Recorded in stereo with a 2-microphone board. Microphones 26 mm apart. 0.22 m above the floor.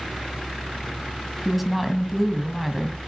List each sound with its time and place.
1.4 s a woman speaking: 5° right (ahead or behind), 1.8 m